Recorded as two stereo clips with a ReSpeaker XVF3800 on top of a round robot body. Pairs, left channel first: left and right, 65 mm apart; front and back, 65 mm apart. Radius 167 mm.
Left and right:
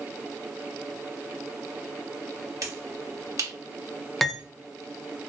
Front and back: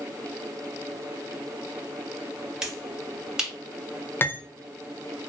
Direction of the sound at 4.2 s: 5° left.